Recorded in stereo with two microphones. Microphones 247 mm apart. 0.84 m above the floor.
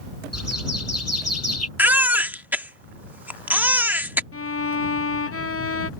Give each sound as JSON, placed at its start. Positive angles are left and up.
{"t": 0.3, "sound": "a bird", "side_deg": 80}
{"t": 1.8, "sound": "a baby crying", "side_deg": -5}
{"t": 4.3, "sound": "a violin", "side_deg": 65}